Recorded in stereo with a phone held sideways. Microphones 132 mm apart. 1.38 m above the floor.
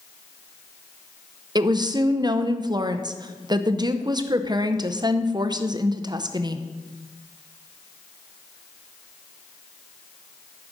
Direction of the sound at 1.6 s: 30° right (ahead or behind).